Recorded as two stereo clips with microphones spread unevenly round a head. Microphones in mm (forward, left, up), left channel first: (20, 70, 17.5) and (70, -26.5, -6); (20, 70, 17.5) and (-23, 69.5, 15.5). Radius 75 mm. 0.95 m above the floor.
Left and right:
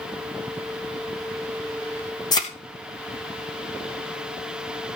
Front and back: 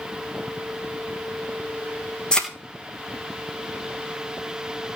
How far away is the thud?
About 3 m.